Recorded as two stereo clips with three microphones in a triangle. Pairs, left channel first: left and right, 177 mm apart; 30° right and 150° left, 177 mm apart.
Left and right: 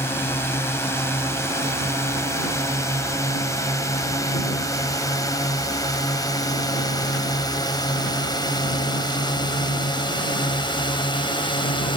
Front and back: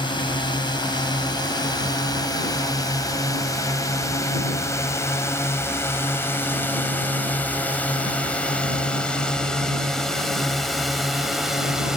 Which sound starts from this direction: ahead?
A drone, at 0.0 s.